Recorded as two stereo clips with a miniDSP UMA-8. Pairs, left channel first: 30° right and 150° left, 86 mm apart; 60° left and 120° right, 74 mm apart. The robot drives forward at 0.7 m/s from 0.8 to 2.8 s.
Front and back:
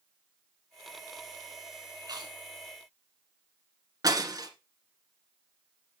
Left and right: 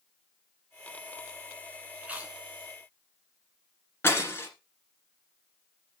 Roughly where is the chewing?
Behind.